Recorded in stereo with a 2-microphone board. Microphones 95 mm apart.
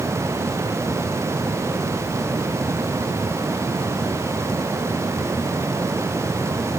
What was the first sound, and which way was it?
Only background noise.